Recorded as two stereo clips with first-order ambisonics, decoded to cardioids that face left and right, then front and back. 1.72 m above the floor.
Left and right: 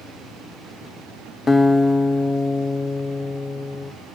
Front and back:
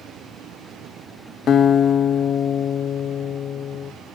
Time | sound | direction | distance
1.5 | a guitar | 25° left | 0.5 m